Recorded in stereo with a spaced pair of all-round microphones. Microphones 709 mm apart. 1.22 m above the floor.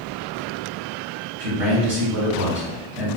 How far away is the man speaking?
About 1.6 m.